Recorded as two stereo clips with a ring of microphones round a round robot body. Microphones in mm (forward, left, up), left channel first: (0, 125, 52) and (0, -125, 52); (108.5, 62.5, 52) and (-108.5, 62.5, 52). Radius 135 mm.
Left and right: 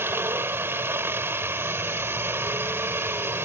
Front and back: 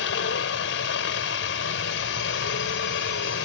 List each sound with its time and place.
0.0 s a helicopter: 10° right